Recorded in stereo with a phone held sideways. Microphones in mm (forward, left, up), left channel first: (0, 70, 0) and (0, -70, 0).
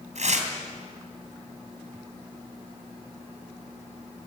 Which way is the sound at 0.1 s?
60° right (ahead or behind).